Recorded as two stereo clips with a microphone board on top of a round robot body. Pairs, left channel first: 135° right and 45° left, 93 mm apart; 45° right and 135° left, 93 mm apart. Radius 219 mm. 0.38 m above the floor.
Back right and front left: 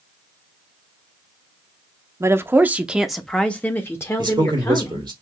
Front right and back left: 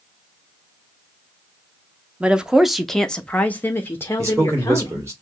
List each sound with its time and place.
2.2 s a woman speaking: 70° left, 1.0 m; by 5.1 s 95° right, 1.4 m
4.2 s a man speaking: 80° left, 3 m